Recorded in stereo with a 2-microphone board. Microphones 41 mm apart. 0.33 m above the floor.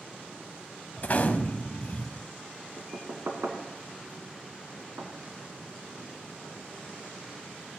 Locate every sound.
1.0 s a gunshot: 45° left (ahead or behind), 0.9 m
2.8 s knocking: 70° right (ahead or behind), 2 m